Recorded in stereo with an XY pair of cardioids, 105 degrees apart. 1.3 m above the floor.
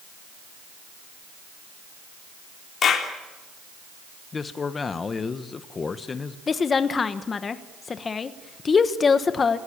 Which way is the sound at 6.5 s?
35° left.